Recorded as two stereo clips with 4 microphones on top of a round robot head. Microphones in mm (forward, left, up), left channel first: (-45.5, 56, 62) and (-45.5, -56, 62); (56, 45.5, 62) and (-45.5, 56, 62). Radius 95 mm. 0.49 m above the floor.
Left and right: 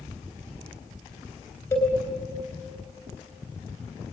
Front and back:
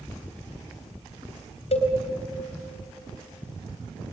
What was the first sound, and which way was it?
A cowbell, 20° left.